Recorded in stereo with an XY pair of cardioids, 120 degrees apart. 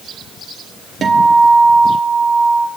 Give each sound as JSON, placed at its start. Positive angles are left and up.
{"t": 1.0, "sound": "a guitar", "azimuth_deg": -35, "distance_m": 1.1}